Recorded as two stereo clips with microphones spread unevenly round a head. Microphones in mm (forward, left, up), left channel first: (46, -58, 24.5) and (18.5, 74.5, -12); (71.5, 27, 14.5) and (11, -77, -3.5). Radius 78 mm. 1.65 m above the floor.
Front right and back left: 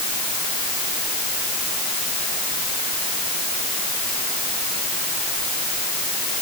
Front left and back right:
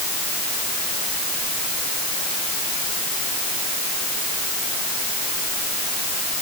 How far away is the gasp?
No gasp in this recording.